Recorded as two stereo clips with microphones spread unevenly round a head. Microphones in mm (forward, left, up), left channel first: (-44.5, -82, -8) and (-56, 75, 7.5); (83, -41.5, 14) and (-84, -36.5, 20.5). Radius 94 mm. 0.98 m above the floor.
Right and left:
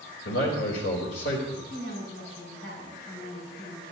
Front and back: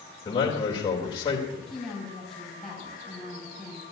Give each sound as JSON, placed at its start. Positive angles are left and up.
{"t": 0.2, "sound": "a man speaking", "azimuth_deg": -60, "distance_m": 3.5}
{"t": 1.7, "sound": "a woman speaking", "azimuth_deg": -90, "distance_m": 6.5}